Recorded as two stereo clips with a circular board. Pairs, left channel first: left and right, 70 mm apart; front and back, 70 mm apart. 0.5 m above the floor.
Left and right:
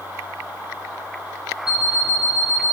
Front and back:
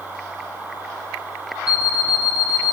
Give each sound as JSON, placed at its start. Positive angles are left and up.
{"t": 1.7, "sound": "an alarm clock", "azimuth_deg": -10, "distance_m": 3.0}